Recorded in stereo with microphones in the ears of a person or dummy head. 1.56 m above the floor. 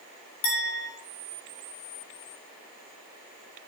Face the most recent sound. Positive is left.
turn(degrees=80)